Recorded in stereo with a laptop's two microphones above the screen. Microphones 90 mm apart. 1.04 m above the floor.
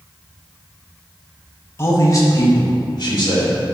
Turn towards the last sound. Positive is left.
turn(degrees=55)  # may be behind; listen again after turning